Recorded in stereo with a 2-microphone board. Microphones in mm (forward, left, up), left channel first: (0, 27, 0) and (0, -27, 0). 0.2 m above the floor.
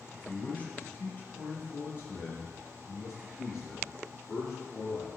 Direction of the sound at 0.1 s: 20° left (ahead or behind).